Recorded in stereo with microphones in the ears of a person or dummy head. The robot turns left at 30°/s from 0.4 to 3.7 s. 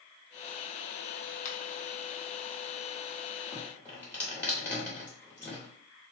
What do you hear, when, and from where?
1.4 s a finger snap: 50° left (ahead or behind), 0.7 m; by 1.6 s 45° left (ahead or behind), 0.7 m
3.5 s dripping: 20° left (ahead or behind), 1.4 m; by 5.7 s 15° left (ahead or behind), 1.4 m